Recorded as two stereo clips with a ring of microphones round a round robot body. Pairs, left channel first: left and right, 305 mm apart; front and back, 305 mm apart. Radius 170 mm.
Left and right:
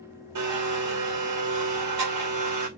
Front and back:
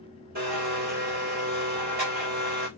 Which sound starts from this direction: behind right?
A blender, at 0.3 s.